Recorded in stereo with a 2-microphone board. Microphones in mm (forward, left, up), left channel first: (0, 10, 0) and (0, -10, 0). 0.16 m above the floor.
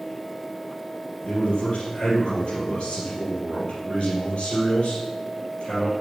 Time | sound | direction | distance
1.2 | a man speaking | 60° left (ahead or behind) | 3.5 m